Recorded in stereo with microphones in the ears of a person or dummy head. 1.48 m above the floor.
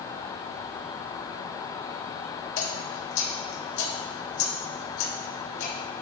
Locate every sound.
2.6 s dripping: 75° left (ahead or behind), 1.7 m